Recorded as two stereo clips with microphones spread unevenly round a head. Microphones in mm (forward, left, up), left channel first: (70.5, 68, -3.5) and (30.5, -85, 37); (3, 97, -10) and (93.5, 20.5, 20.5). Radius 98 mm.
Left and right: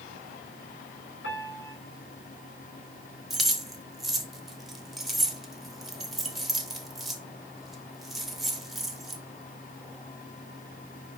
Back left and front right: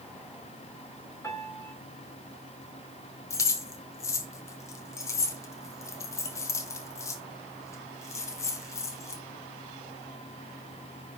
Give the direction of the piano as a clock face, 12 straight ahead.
10 o'clock.